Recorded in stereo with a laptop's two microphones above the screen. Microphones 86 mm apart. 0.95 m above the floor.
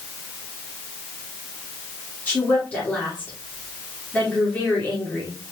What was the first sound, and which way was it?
A woman speaking, 20° left (ahead or behind).